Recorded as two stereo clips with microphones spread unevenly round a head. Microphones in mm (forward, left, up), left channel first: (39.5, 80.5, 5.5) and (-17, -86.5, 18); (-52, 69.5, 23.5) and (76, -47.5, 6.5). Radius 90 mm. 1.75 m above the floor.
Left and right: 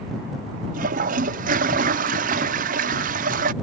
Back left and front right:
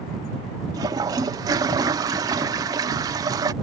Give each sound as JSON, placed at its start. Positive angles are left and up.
{"t": 0.7, "sound": "a toilet flushing", "azimuth_deg": -115}